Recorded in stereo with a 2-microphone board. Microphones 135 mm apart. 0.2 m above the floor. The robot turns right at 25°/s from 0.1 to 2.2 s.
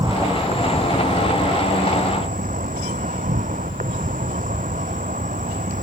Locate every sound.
0.0 s an insect: 145° right; by 5.8 s 95° right